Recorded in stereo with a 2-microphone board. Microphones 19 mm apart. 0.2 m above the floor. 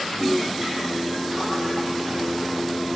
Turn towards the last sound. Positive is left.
turn(degrees=80)